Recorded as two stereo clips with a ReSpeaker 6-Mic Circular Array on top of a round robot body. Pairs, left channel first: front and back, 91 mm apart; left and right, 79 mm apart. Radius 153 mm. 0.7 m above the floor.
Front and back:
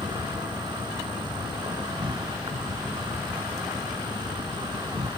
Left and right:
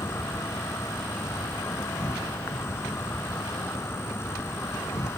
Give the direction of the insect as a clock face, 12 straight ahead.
7 o'clock.